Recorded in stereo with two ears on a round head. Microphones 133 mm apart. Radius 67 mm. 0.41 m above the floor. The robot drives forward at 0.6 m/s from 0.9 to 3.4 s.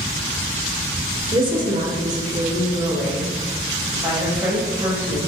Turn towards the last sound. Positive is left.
turn(degrees=-20)  # may be behind; listen again after turning